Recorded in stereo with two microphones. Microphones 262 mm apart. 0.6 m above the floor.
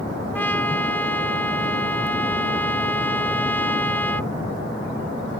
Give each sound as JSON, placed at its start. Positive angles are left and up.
{"t": 0.3, "sound": "a trumpet", "side_deg": 5}